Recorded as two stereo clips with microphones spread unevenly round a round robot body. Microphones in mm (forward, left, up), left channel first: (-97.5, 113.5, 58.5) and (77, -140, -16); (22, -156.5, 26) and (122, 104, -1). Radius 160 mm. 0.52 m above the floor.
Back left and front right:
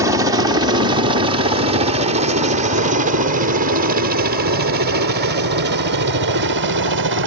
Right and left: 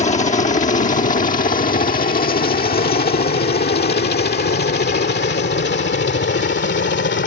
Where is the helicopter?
70° right.